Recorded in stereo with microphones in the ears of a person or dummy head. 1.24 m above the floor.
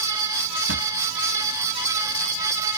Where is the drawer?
85° right.